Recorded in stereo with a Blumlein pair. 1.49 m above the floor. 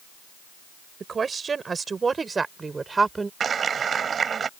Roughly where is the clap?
Ahead.